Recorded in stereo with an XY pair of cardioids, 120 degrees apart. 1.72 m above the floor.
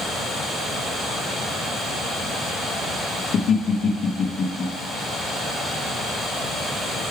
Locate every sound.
3.3 s laughter: 60° left, 1.0 m